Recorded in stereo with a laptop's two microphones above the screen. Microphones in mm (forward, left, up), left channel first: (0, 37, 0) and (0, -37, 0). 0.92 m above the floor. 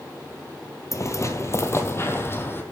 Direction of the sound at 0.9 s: 40° left (ahead or behind).